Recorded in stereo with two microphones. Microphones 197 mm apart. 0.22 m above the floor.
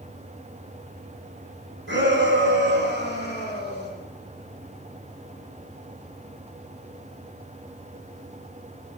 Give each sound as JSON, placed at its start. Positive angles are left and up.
{"t": 1.9, "sound": "a shout", "side_deg": -75, "distance_m": 5.0}